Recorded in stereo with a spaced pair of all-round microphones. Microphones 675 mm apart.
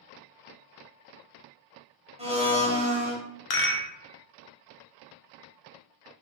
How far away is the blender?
About 0.7 m.